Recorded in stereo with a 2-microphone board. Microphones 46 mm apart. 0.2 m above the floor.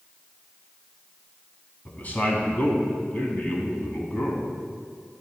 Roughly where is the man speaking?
Left.